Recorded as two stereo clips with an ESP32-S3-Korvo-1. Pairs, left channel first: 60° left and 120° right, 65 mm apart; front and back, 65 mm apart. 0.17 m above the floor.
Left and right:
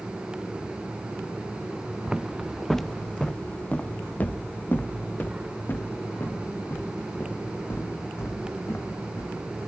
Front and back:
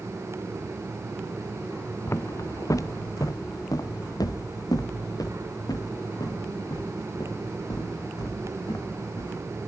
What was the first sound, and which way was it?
Footsteps, 45° right.